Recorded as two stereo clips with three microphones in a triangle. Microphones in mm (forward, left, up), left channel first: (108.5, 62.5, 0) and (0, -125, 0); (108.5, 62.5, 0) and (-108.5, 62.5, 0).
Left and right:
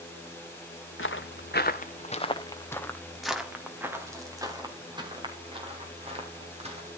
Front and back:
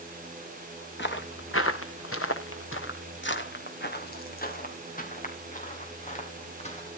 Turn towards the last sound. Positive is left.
turn(degrees=-60)